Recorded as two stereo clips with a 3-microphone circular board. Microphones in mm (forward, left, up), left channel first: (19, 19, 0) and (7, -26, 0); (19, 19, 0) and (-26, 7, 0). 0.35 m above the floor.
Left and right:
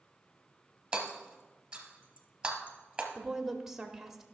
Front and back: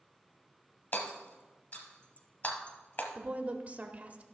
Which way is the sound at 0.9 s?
30° right.